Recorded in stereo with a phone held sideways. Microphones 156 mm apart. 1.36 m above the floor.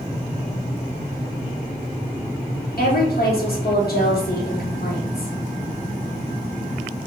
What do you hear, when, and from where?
2.8 s a woman speaking: 70° left (ahead or behind), 1.4 m